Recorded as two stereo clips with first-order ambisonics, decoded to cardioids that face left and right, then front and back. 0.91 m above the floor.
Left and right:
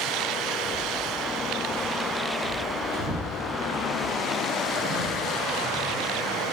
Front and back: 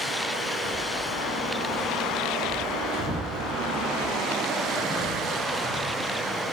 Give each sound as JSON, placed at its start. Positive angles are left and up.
{"t": 0.6, "sound": "footsteps", "azimuth_deg": -35, "distance_m": 6.0}